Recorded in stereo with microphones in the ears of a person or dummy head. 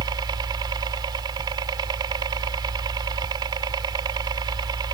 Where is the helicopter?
20° right (ahead or behind).